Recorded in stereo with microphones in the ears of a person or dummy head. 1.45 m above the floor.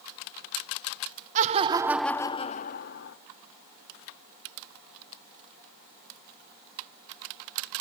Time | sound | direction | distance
1.4 | laughter | 40° right (ahead or behind) | 0.8 m